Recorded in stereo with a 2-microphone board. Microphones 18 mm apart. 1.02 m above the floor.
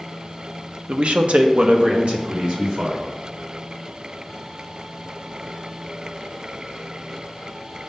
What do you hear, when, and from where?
0.9 s a man speaking: 65° right (ahead or behind), 0.6 m; by 3.1 s 50° right (ahead or behind), 1.8 m